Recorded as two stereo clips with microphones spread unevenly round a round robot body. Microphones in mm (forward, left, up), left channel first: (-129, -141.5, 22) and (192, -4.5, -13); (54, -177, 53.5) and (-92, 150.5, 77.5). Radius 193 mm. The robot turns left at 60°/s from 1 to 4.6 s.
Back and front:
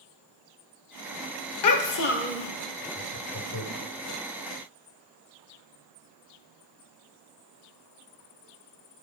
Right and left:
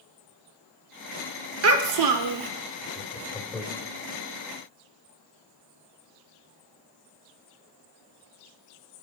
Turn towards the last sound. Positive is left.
turn(degrees=140)